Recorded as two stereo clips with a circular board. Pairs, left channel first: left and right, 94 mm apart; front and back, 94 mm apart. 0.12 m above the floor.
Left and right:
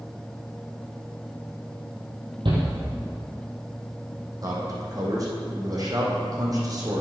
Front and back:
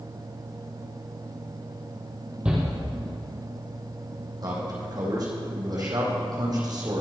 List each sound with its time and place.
2.5 s a shout: 105° right, 4.5 m
4.4 s a man speaking: 135° right, 4.5 m